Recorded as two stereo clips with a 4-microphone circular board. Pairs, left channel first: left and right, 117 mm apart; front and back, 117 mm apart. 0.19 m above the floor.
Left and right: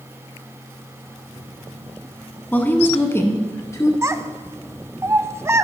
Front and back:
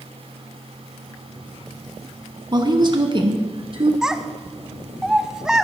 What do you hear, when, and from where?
2.5 s a woman speaking: 155° left, 1.3 m; by 3.9 s 150° left, 2 m
4.0 s a child speaking: 105° right, 0.6 m